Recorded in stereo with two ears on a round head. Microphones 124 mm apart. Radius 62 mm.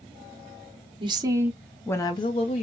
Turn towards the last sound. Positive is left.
turn(degrees=50)  # may be behind; listen again after turning